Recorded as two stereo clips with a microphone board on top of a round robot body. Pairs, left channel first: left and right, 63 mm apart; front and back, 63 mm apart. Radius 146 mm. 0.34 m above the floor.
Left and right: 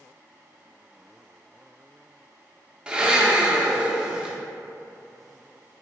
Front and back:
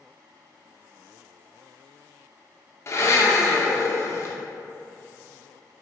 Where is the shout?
I don't hear a shout.